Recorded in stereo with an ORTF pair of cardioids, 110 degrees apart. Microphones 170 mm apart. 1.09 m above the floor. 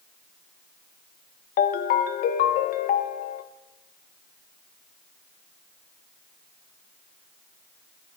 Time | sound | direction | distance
1.6 | a ringtone | 60° left | 0.6 m